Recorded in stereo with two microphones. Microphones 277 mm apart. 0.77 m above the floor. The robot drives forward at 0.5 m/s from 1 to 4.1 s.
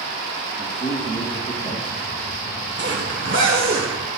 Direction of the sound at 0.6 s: 20° left (ahead or behind).